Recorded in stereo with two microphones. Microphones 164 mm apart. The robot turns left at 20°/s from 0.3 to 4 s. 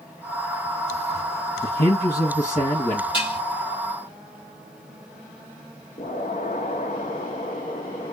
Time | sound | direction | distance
1.6 | a man speaking | 70° left (ahead or behind) | 1.1 m
3.1 | dishes clattering | 30° left (ahead or behind) | 3 m
6.0 | an explosion | 55° left (ahead or behind) | 1.0 m